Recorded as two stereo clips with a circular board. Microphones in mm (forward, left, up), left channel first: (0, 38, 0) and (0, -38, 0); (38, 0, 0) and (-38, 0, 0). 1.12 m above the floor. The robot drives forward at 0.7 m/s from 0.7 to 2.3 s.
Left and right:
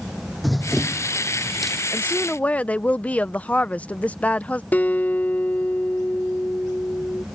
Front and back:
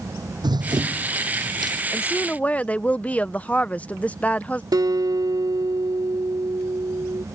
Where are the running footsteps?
Straight behind.